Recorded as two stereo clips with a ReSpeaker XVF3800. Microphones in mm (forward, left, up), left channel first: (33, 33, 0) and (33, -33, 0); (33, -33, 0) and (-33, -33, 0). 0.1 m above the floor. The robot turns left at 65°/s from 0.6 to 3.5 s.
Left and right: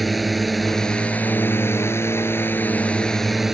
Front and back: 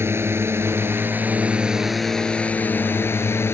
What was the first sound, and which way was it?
A drone, straight behind.